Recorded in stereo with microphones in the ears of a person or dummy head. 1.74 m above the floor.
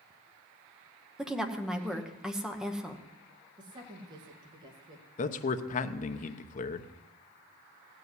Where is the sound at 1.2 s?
5° right (ahead or behind), 1.2 m.